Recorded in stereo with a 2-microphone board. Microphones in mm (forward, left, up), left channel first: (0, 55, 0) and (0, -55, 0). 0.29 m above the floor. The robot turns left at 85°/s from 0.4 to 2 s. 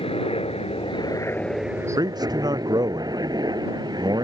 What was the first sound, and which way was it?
A helicopter, 70° left (ahead or behind).